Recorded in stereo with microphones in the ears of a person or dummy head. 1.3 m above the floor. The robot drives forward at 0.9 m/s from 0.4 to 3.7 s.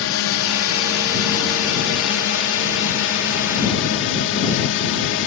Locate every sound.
0.0 s a drone: 65° left (ahead or behind); by 5.3 s 60° left (ahead or behind)